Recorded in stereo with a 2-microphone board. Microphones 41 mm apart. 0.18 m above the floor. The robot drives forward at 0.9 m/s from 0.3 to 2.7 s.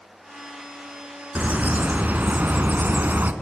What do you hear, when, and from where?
1.4 s a bird: 35° right (ahead or behind), 2.0 m; by 3.3 s 45° right (ahead or behind), 1.6 m